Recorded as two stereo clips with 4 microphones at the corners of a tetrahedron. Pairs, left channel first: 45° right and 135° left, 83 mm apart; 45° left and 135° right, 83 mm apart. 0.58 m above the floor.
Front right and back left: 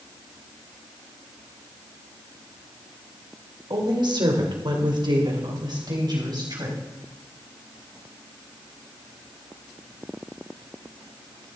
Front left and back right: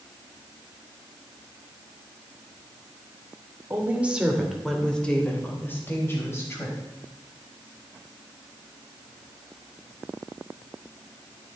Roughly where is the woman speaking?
Behind.